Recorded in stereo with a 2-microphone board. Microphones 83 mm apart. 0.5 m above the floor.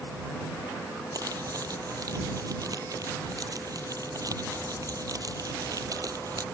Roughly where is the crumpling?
Right.